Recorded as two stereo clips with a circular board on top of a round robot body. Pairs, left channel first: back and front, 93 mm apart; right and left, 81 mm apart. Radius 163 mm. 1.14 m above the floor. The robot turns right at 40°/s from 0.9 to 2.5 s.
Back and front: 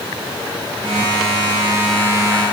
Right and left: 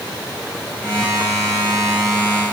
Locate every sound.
Only background noise.